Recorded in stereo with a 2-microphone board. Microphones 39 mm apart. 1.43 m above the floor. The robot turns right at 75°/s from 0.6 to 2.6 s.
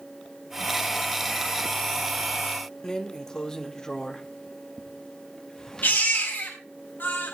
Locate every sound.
2.8 s a drawer: 20° left (ahead or behind), 1.1 m
5.8 s a baby crying: 60° left (ahead or behind), 6.5 m